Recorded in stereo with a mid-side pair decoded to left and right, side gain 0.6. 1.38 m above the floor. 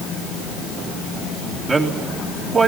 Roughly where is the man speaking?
Ahead right.